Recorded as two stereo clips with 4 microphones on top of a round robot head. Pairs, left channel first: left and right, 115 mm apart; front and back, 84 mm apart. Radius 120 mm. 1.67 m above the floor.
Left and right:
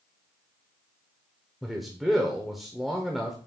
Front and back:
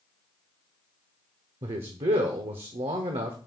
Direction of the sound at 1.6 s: Straight behind.